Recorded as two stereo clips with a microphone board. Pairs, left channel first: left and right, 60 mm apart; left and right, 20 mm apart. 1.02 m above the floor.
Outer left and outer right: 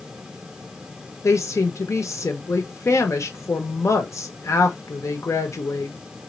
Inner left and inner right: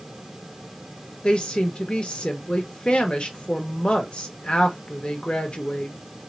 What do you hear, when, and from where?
1.2 s a woman speaking: 55° left (ahead or behind), 1.2 m